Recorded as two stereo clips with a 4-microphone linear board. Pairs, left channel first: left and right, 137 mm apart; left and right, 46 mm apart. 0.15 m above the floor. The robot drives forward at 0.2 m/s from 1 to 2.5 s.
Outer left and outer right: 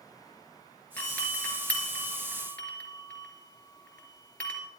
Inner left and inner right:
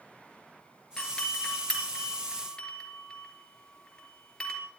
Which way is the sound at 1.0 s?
10° left (ahead or behind).